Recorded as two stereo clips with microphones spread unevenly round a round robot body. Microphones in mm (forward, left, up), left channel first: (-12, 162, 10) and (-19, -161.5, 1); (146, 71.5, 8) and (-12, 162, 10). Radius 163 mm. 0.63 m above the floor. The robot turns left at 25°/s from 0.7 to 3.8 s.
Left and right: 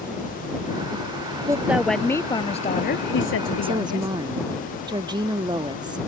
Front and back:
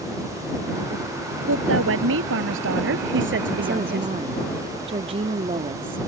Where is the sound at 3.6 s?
155° right; by 6.0 s 160° right.